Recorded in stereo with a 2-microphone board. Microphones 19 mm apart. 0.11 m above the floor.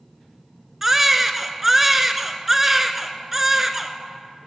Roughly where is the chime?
No chime in this recording.